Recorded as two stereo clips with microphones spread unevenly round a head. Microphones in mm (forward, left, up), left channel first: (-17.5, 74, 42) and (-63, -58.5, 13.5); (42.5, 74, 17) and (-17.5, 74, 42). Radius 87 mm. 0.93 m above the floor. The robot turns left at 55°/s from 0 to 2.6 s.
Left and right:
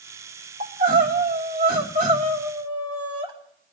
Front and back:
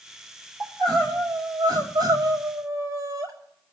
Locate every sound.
0.6 s crying: 55° right, 4.5 m; by 3.3 s 165° right, 4.5 m